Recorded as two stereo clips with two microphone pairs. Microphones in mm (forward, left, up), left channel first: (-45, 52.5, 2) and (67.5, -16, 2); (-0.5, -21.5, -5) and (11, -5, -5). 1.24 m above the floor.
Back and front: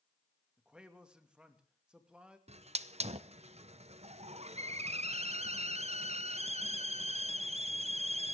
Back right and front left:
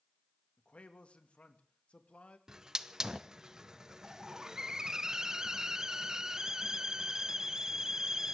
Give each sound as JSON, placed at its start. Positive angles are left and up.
{"t": 0.6, "sound": "a man speaking", "azimuth_deg": -115, "distance_m": 2.0}
{"t": 2.5, "sound": "a hiss", "azimuth_deg": -5, "distance_m": 0.8}